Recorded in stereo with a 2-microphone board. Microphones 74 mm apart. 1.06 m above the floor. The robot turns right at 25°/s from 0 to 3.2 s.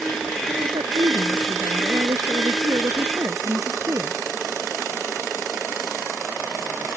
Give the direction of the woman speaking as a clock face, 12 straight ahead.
4 o'clock.